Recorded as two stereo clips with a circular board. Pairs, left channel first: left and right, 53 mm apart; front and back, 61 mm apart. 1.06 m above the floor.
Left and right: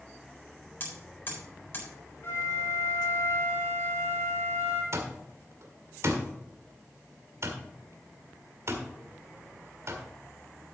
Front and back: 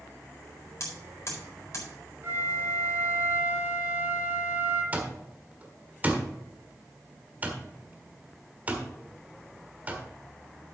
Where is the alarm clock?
120° right, 1.5 m.